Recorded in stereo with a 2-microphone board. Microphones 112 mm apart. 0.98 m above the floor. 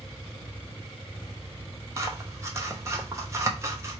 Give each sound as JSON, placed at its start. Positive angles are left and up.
{"t": 2.0, "sound": "scissors", "side_deg": -25, "distance_m": 0.9}